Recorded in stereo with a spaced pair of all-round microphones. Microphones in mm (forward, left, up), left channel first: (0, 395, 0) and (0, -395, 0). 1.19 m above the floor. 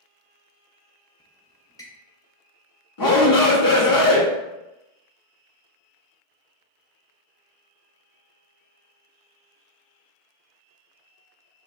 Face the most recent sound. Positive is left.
turn(degrees=25)  # may be behind; listen again after turning